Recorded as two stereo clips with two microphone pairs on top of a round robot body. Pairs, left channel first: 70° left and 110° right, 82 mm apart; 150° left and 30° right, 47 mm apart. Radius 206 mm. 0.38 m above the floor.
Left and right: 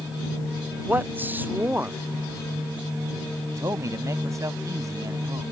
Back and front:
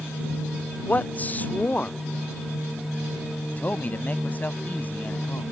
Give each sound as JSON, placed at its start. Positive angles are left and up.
{"t": 0.9, "sound": "a man speaking", "azimuth_deg": -165}
{"t": 3.6, "sound": "a man speaking", "azimuth_deg": -155}